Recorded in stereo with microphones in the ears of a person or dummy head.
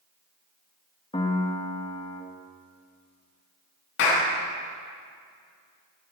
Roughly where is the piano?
Left.